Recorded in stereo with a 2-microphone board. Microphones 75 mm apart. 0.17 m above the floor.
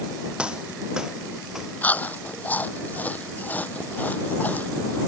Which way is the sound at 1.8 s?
25° left (ahead or behind).